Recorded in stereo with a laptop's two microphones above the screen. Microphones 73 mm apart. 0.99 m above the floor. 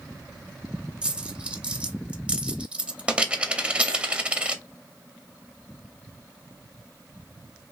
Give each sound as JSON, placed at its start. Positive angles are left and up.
{"t": 1.0, "sound": "a dropped coin", "side_deg": -15, "distance_m": 0.6}